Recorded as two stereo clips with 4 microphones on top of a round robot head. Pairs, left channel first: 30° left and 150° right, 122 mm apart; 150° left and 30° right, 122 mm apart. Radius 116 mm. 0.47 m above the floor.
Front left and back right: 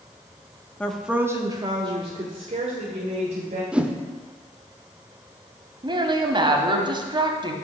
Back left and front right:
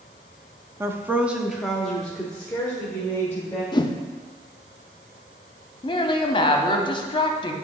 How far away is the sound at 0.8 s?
About 0.7 m.